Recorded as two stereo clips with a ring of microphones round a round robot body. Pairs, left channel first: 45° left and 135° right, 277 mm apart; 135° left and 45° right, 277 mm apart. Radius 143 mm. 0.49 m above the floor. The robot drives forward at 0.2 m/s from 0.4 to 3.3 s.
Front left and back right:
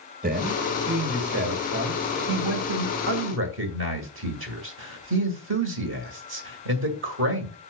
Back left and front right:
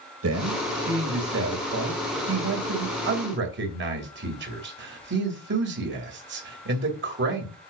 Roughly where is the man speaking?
Right.